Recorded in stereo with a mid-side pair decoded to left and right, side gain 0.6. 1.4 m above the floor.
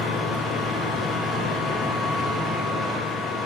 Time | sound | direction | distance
0.0 | a machine running | 40° left | 1.7 m